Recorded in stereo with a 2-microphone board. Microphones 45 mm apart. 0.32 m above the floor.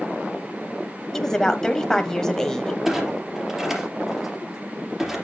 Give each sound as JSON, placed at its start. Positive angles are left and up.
{"t": 1.1, "sound": "a woman speaking", "side_deg": 10, "distance_m": 1.3}
{"t": 2.9, "sound": "a clunk", "side_deg": -15, "distance_m": 3.5}